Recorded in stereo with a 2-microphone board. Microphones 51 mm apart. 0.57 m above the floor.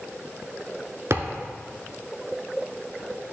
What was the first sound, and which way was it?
A thud, 65° right (ahead or behind).